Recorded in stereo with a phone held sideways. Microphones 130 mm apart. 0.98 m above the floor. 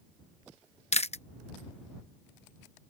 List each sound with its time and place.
0.9 s chewing: 55° left (ahead or behind)